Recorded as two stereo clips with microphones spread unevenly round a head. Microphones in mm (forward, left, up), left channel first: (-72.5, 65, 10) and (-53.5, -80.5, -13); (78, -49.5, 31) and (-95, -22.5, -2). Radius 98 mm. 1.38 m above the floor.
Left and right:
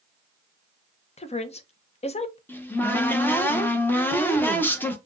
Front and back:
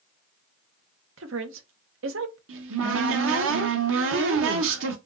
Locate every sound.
1.2 s a woman speaking: 140° left, 0.8 m
2.5 s a cupboard door: 175° left, 1.0 m